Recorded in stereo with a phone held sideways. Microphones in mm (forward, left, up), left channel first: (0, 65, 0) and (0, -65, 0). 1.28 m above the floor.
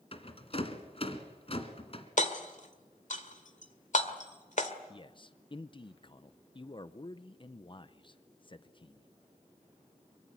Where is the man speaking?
35° left (ahead or behind), 0.6 m.